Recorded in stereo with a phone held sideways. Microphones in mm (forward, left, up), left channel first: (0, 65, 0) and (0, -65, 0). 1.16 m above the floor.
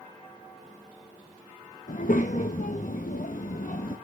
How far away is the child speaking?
About 0.8 m.